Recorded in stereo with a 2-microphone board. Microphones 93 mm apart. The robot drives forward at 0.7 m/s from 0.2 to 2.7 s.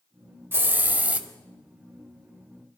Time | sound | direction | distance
0.5 | a hiss | 25° right (ahead or behind) | 0.7 m